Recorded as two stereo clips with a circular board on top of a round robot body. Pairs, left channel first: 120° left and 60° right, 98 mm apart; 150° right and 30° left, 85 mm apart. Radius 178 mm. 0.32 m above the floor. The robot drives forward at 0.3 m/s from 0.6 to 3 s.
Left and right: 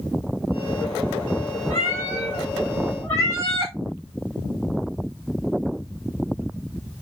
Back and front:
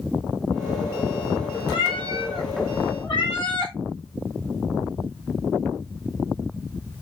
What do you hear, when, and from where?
1.7 s a cat meowing: straight behind, 1.5 m